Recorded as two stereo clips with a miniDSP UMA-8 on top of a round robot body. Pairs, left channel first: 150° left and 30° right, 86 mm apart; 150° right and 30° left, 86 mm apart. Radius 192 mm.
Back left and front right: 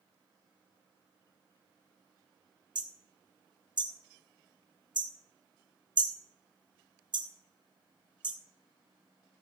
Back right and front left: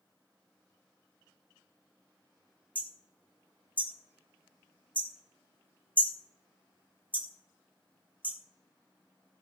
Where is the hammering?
35° right, 2 m.